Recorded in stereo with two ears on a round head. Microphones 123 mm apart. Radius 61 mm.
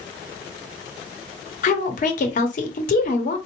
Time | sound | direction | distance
1.6 | a woman speaking | 60° left (ahead or behind) | 0.9 m